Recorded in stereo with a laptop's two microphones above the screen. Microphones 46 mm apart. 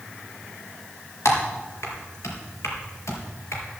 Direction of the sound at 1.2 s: 80° left.